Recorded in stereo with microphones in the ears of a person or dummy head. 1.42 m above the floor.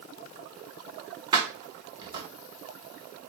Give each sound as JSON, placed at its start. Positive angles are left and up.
{"t": 1.3, "sound": "keys jangling", "side_deg": -30, "distance_m": 1.1}